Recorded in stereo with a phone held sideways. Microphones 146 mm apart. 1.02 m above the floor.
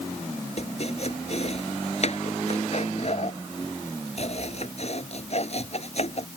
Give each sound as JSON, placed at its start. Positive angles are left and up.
{"t": 0.6, "sound": "chopping", "side_deg": 50}